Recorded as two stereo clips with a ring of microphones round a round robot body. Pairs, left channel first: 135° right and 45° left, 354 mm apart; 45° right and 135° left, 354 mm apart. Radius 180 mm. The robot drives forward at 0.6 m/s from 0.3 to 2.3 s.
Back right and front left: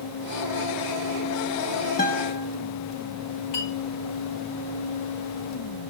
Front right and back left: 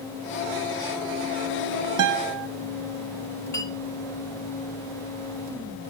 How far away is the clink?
About 3.5 m.